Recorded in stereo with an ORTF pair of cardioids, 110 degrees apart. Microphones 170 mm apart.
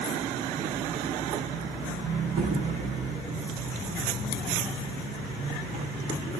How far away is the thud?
About 5.5 m.